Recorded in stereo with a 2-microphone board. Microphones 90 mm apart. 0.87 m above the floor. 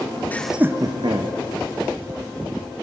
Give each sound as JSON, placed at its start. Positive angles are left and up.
{"t": 0.3, "sound": "laughter", "side_deg": 20, "distance_m": 0.6}